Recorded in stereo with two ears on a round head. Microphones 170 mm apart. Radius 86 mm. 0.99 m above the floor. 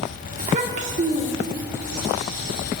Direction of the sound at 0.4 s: 40° right (ahead or behind).